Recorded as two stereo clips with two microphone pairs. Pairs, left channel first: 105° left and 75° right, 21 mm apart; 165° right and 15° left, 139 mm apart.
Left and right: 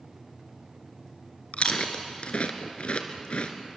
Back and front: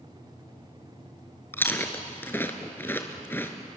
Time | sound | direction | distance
1.5 | chewing | 120° left | 1.9 m